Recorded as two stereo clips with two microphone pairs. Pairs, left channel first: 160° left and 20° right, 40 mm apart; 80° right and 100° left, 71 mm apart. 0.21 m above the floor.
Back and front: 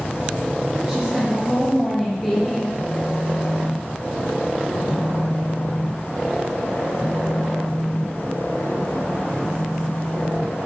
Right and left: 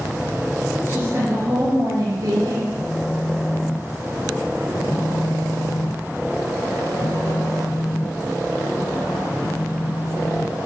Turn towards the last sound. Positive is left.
turn(degrees=-130)